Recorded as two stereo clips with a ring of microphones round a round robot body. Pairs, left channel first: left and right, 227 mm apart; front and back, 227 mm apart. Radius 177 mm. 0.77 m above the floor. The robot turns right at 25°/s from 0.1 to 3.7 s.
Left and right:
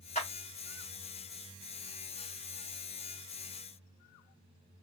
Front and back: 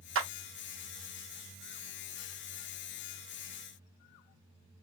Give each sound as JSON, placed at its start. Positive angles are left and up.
{"t": 0.1, "sound": "a clap", "azimuth_deg": 155, "distance_m": 0.9}